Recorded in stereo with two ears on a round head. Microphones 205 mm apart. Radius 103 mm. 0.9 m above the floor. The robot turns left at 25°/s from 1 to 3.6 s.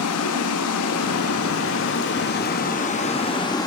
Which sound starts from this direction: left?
Running water, at 0.0 s.